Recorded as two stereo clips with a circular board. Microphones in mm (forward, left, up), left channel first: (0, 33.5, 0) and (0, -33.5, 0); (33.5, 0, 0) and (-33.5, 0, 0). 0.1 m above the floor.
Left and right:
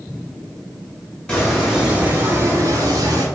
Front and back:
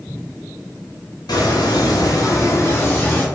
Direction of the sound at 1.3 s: 10° left.